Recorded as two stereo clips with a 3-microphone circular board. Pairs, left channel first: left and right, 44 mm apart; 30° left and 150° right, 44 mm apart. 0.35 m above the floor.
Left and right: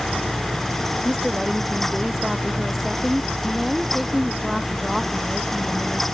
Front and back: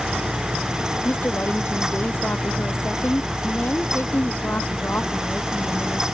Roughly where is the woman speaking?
Ahead.